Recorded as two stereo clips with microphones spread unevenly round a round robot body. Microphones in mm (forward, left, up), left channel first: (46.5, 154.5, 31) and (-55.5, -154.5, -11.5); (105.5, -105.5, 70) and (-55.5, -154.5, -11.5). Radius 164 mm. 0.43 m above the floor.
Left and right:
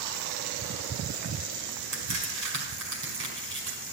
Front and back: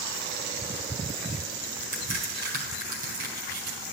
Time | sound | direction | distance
1.9 | a crack | 160° right | 4.5 m